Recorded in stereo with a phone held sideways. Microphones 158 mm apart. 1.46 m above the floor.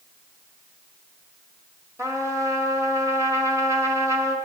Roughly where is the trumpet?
Centre.